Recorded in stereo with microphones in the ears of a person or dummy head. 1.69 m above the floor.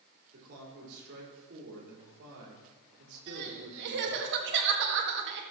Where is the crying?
55° right (ahead or behind), 1.9 m.